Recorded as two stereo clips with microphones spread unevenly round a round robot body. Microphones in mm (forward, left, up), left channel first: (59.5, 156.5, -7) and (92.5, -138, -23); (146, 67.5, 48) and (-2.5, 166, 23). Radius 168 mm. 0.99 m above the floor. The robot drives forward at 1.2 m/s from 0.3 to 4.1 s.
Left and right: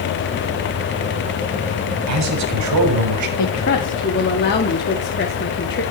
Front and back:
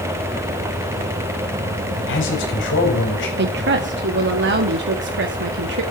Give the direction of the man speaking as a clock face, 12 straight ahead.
2 o'clock.